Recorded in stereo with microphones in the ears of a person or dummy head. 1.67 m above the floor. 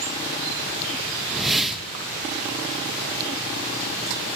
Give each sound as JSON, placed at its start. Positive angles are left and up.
{"t": 1.3, "sound": "a whoosh", "side_deg": 0, "distance_m": 2.0}